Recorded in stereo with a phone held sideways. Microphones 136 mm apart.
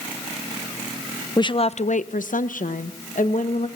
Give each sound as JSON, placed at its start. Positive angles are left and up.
{"t": 1.4, "sound": "a woman speaking", "side_deg": 30, "distance_m": 0.5}